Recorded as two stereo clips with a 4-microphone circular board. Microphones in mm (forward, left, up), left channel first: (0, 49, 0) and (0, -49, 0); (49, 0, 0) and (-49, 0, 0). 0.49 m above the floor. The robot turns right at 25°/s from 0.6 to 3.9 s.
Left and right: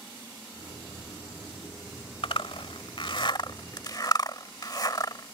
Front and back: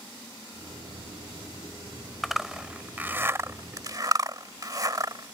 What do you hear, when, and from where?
2.2 s a zipper: 90° left; by 5.3 s 135° left